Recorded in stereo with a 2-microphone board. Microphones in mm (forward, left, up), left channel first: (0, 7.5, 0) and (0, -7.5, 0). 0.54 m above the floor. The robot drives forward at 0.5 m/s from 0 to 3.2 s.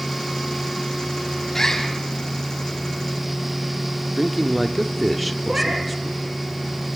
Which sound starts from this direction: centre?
A man speaking, at 4.2 s.